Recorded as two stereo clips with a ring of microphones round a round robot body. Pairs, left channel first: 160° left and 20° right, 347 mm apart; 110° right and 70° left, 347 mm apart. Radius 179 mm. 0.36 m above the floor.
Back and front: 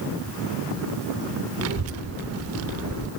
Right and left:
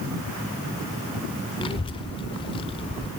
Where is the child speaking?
45° right, 0.5 m.